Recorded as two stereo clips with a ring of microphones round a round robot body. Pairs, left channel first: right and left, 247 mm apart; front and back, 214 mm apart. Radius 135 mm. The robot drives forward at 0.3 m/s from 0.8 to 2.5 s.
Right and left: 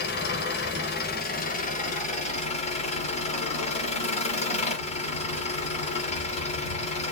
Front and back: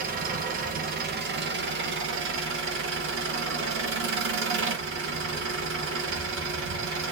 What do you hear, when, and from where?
0.0 s an engine running: 135° right, 0.7 m; by 7.1 s 155° right, 1.1 m